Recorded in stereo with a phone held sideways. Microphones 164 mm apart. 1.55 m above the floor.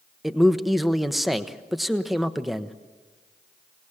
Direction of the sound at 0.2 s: Centre (ahead or behind).